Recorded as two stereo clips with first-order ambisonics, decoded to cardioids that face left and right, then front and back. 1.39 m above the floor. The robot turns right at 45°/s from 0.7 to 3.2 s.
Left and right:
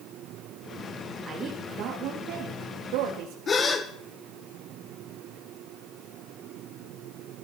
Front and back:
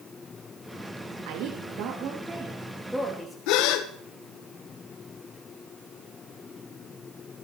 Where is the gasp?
20° left, 1.5 m.